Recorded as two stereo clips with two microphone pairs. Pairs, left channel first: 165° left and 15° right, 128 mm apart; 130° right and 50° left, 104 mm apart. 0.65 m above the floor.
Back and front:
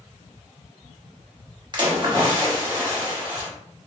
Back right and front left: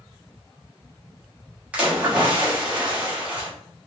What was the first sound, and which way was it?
A splash, 20° right.